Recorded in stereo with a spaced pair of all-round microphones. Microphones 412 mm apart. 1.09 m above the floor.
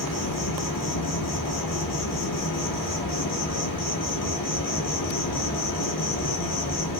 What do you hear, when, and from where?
0.0 s an insect: 50° left (ahead or behind), 0.8 m